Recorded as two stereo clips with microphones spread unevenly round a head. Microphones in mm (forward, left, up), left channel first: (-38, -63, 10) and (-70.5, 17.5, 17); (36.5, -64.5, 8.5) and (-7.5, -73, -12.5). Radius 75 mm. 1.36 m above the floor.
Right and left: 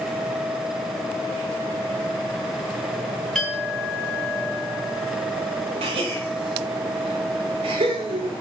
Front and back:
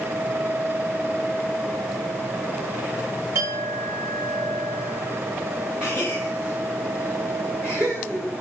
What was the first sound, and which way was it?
A clink, 155° right.